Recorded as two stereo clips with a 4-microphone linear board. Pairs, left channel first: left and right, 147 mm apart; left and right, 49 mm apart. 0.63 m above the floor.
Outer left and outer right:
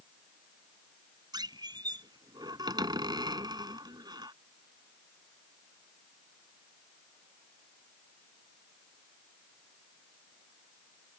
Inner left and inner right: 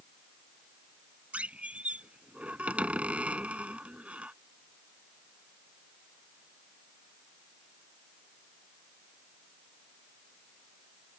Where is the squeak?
30° right (ahead or behind).